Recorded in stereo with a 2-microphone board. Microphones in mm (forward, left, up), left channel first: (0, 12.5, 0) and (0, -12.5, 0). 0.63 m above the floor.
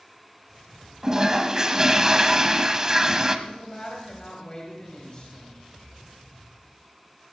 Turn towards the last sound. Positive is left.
turn(degrees=40)  # may be behind; listen again after turning